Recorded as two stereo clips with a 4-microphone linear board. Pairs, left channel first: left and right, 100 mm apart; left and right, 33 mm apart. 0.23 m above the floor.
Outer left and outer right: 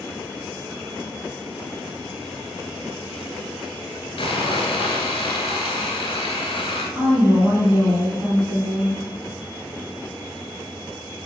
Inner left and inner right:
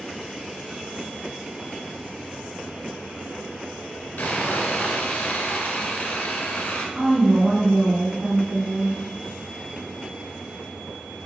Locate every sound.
4.2 s sawing: 70° left (ahead or behind), 0.7 m
7.0 s a woman speaking: 35° right (ahead or behind), 1.4 m